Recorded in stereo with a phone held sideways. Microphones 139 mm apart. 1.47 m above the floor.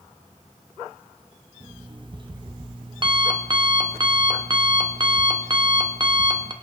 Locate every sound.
1.6 s an alarm clock: 35° right (ahead or behind), 1.2 m